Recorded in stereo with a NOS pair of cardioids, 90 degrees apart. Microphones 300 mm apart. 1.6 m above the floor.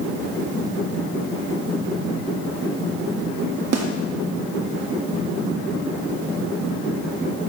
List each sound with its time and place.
3.7 s a snare drum: 55° right, 1.4 m